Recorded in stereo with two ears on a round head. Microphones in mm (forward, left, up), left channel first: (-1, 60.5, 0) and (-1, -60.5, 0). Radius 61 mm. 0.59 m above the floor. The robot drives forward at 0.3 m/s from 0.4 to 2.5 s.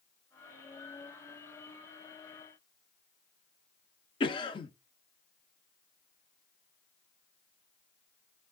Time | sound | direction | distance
4.2 | a cough | 35° left (ahead or behind) | 0.8 m